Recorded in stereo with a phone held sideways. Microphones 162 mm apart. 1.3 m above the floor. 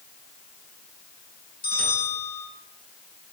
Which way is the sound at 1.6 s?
70° left (ahead or behind).